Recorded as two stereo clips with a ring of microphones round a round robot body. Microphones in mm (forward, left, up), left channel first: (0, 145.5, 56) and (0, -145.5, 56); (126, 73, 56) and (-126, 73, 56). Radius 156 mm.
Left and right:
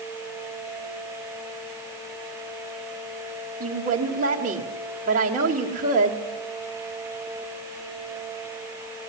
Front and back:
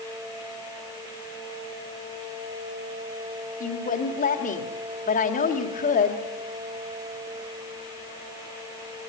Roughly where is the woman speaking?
Ahead right.